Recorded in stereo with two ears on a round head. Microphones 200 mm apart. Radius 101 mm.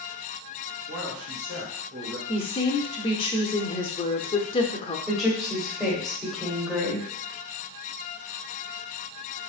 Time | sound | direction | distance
0.9 | a man speaking | 60° right (ahead or behind) | 2.5 m
2.3 | a woman speaking | 25° left (ahead or behind) | 0.8 m
5.1 | a woman speaking | centre (ahead or behind) | 1.9 m